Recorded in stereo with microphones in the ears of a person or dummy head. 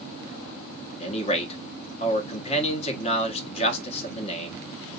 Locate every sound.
1.0 s a man speaking: 35° left (ahead or behind), 1.4 m